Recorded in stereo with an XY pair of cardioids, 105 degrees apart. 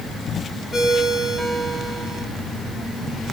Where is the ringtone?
20° left, 5.5 m.